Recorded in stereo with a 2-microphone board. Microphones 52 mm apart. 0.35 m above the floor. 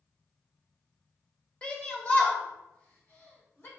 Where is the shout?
25° left (ahead or behind), 1.3 m; by 3.7 s 55° left (ahead or behind), 2 m.